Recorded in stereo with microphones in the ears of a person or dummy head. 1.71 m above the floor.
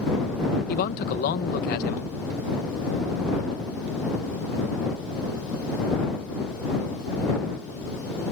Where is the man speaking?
55° left (ahead or behind).